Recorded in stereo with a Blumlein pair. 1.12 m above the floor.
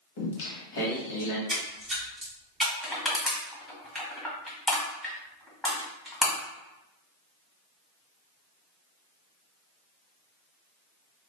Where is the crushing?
5° left, 1.4 m.